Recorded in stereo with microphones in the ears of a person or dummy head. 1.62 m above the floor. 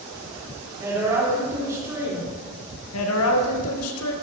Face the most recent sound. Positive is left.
turn(degrees=85)